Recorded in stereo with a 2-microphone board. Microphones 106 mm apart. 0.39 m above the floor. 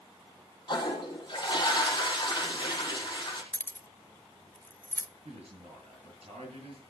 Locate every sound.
0.7 s a toilet flushing: 40° left (ahead or behind), 4.5 m
3.5 s keys jangling: 20° left (ahead or behind), 0.6 m
5.2 s a man speaking: 70° right (ahead or behind), 7 m